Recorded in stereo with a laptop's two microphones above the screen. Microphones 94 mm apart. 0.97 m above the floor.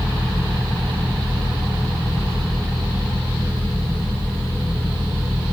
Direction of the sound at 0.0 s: 65° right (ahead or behind).